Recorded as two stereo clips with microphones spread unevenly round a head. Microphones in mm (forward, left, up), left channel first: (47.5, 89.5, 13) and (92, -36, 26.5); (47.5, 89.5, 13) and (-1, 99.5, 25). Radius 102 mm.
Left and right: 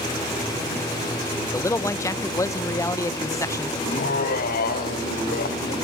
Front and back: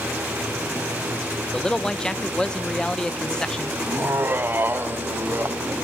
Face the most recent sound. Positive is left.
turn(degrees=120)